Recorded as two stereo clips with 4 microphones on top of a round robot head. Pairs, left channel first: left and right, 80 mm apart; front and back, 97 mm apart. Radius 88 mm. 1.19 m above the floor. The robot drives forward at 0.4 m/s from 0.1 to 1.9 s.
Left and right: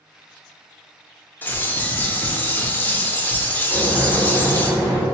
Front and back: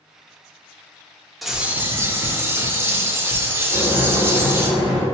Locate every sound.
1.4 s a bird: 90° left, 0.5 m; by 4.7 s 135° left, 0.6 m
3.7 s boiling: 145° right, 2.0 m